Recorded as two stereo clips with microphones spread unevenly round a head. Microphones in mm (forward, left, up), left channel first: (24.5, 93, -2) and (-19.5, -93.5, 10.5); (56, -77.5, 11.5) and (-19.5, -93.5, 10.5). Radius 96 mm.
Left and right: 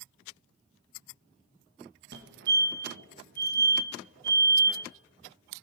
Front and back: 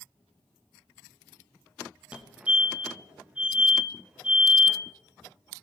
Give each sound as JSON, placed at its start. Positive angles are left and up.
{"t": 2.1, "sound": "a fire alarm", "azimuth_deg": -100, "distance_m": 2.0}